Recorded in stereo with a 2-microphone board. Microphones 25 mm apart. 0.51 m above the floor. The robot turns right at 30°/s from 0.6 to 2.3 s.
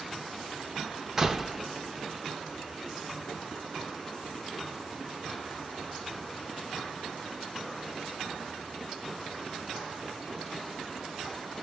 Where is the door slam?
20° right (ahead or behind), 0.9 m; by 1.6 s 10° right (ahead or behind), 0.9 m.